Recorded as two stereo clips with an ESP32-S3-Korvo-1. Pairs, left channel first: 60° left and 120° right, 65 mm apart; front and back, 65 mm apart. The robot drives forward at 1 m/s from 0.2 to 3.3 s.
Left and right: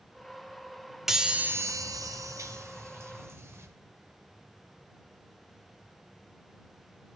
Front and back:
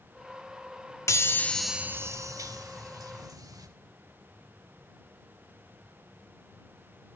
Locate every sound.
1.1 s a chime: 35° right, 0.8 m; by 3.7 s 165° right, 1.7 m